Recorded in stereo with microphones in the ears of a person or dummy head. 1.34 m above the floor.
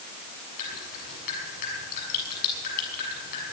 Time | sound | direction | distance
0.6 | dripping | 55° left (ahead or behind) | 7 m